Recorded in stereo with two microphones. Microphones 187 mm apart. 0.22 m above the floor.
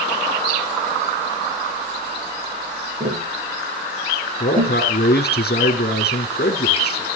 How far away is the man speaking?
About 2.5 m.